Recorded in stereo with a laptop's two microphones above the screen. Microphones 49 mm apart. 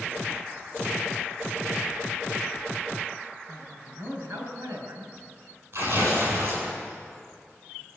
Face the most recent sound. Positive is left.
turn(degrees=-50)  # may be behind; listen again after turning